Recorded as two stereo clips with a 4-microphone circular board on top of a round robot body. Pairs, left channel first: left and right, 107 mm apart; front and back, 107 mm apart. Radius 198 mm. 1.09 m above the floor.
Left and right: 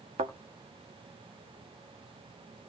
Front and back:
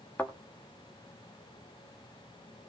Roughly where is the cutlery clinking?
I don't hear cutlery clinking.